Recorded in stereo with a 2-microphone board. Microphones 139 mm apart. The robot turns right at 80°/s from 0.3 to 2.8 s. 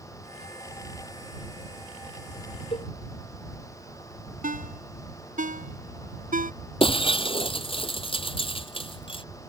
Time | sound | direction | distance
2.7 | a cowbell | 40° left (ahead or behind) | ?
4.4 | a ringtone | 75° right (ahead or behind) | ?
6.8 | breaking glass | 40° left (ahead or behind) | ?